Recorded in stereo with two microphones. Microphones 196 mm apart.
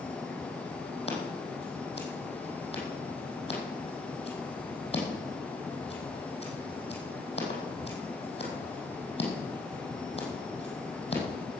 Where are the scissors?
30° left (ahead or behind), 5 m.